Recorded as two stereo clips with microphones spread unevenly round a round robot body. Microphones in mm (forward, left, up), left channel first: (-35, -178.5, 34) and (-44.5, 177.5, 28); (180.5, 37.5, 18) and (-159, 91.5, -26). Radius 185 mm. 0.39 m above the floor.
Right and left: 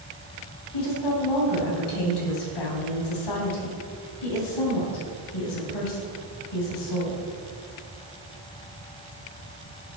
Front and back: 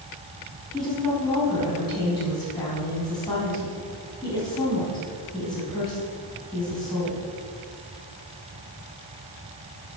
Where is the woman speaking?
90° right, 2.5 m.